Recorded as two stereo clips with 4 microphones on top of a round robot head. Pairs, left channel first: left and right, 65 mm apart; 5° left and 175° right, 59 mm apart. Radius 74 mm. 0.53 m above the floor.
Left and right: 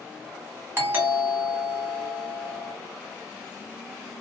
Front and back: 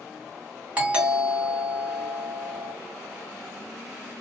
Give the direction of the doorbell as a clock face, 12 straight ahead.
4 o'clock.